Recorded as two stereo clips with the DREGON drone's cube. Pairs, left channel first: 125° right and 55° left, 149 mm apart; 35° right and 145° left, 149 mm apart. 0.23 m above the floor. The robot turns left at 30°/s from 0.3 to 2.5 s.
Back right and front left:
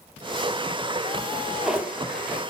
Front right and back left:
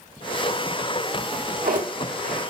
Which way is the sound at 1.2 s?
155° left.